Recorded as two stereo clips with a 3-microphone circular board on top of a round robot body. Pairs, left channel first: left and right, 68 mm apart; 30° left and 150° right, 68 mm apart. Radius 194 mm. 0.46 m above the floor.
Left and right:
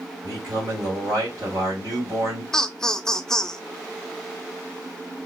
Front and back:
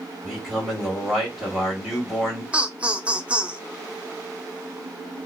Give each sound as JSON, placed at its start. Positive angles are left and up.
{"t": 0.2, "sound": "a man speaking", "azimuth_deg": -55, "distance_m": 1.8}
{"t": 2.5, "sound": "laughter", "azimuth_deg": 160, "distance_m": 0.7}